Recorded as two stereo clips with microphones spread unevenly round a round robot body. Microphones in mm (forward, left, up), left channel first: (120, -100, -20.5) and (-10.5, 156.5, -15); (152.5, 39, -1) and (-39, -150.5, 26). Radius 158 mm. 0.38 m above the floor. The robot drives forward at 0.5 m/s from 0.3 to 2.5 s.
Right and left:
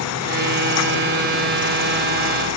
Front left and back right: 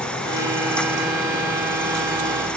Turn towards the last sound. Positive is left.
No sound to turn to.